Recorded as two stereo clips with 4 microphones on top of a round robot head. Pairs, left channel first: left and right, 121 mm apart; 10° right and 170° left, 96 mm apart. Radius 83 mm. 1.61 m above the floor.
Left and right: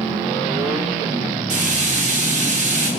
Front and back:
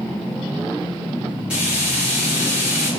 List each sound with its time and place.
1.5 s frying: 105° right, 3.5 m